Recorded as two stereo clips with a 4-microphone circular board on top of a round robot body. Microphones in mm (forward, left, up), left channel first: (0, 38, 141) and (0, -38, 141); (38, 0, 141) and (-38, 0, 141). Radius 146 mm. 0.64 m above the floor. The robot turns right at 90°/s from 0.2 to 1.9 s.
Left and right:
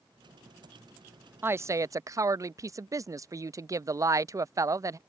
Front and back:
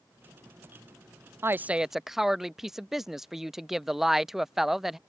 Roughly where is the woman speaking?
Behind right.